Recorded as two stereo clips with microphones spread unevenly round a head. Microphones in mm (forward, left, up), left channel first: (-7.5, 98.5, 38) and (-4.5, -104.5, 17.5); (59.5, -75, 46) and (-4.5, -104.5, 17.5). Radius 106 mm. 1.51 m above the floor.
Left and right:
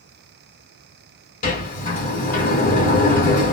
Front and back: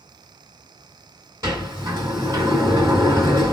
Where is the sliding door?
120° left, 1.7 m.